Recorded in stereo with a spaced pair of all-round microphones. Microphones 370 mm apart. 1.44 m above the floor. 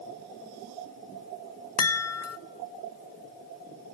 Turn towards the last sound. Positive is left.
turn(degrees=40)  # may be behind; listen again after turning